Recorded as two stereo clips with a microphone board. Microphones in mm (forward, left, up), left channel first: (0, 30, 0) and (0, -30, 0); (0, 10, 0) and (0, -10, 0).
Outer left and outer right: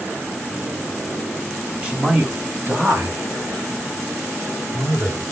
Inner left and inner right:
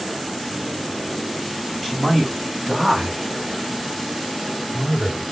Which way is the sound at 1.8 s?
20° right (ahead or behind).